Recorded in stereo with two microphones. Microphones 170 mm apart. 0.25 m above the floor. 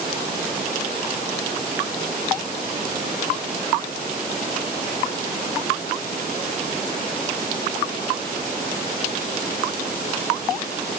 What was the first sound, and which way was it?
Only background noise.